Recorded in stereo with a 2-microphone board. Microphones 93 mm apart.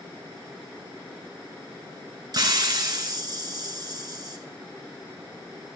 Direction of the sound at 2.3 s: 45° right (ahead or behind).